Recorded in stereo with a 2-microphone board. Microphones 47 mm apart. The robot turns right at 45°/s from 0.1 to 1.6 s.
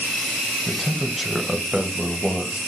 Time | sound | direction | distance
0.7 | a man speaking | 5° left (ahead or behind) | 1.3 m